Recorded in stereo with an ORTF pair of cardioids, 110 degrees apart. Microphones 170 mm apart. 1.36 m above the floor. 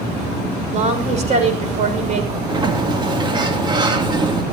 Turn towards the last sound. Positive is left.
turn(degrees=-25)